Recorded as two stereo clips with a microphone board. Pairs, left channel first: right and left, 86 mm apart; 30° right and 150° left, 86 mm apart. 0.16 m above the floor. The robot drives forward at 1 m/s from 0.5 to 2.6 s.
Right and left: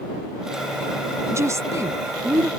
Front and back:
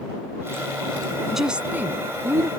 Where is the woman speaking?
65° left; by 2.5 s 135° left.